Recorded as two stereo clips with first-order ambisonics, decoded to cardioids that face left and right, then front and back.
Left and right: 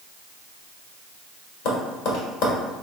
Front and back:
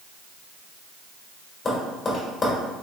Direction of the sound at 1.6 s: 75° left.